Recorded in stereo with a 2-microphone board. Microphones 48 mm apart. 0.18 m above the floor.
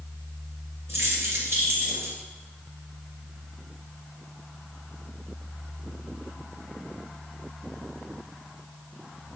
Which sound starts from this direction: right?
Keys jangling, at 0.9 s.